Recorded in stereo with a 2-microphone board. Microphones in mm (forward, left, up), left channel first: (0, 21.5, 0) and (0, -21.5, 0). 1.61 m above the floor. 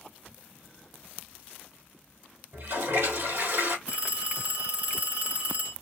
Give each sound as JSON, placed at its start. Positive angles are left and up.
{"t": 2.5, "sound": "a toilet flushing", "side_deg": -75, "distance_m": 2.5}
{"t": 3.9, "sound": "a phone ringing", "side_deg": -35, "distance_m": 1.1}